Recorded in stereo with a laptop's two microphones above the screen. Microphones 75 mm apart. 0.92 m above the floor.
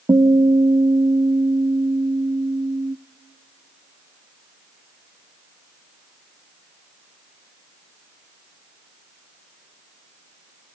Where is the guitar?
60° right (ahead or behind), 0.6 m.